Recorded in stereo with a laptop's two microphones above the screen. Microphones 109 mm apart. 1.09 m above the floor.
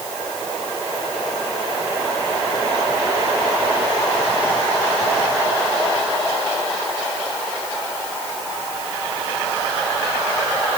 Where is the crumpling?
No crumpling in this recording.